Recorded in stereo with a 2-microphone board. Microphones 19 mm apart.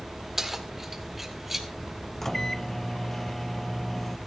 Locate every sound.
0.4 s keys jangling: 20° right (ahead or behind), 1.6 m; by 1.7 s 15° right (ahead or behind), 2.5 m
2.2 s a microwave: 15° left (ahead or behind), 0.6 m